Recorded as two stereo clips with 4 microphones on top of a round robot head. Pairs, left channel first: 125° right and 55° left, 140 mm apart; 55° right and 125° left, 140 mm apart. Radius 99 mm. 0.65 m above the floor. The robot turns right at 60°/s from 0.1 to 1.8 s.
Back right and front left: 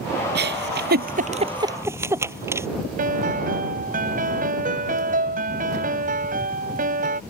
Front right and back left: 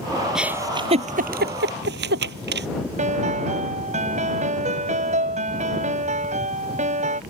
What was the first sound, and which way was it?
A giggle, 40° left.